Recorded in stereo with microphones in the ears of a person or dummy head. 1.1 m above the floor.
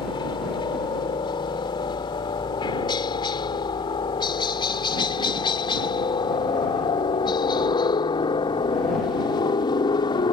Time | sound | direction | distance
0.0 | a helicopter | 25° left (ahead or behind) | ?